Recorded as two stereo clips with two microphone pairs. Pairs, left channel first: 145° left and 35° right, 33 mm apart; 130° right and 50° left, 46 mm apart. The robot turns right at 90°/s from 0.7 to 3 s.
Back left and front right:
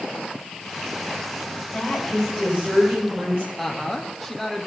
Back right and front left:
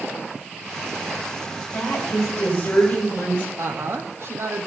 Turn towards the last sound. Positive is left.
turn(degrees=55)